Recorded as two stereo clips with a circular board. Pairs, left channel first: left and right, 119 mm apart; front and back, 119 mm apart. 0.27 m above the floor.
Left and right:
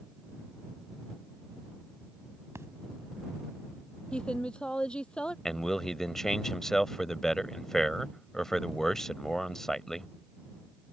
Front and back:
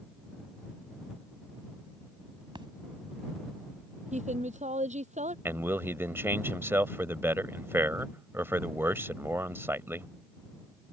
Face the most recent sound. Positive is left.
turn(degrees=170)